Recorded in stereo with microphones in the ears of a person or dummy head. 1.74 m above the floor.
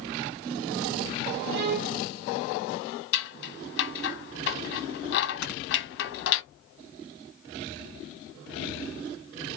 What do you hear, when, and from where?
1.5 s a violin: 60° right (ahead or behind), 0.7 m
3.1 s scissors: 65° left (ahead or behind), 0.7 m
5.4 s snoring: 70° left (ahead or behind), 1.7 m